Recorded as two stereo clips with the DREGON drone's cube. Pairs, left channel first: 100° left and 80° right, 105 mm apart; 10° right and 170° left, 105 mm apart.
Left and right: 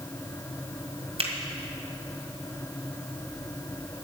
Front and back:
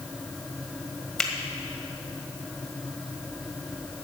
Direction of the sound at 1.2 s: 95° right.